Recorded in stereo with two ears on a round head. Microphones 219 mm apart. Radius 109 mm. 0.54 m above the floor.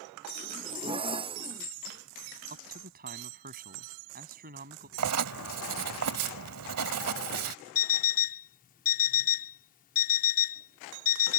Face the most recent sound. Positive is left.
turn(degrees=35)  # may be behind; listen again after turning